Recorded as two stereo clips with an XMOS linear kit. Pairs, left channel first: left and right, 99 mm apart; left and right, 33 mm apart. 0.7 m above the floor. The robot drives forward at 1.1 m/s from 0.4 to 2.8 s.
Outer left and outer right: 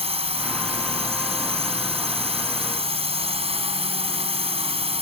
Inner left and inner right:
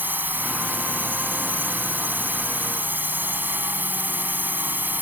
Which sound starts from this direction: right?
A drone, at 0.0 s.